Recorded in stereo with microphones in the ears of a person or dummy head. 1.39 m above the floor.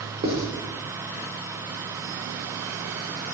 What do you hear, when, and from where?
0.2 s writing: 30° right (ahead or behind), 1.1 m